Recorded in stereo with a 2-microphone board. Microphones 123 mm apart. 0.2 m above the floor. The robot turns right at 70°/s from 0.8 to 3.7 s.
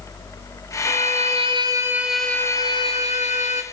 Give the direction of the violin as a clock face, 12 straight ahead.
3 o'clock.